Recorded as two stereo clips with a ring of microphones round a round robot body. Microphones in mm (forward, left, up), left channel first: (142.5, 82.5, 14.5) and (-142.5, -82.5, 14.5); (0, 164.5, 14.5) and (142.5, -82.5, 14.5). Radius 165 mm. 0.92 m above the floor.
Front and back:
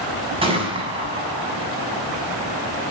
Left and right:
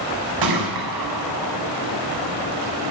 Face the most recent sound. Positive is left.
turn(degrees=-75)